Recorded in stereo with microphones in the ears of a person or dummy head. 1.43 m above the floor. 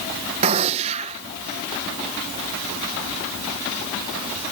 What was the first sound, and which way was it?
A gunshot, 35° right (ahead or behind).